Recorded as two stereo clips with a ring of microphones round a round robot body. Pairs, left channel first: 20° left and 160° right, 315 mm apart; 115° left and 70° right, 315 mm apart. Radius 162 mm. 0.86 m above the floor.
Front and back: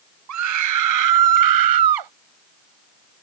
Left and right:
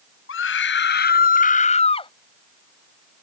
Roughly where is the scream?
Behind.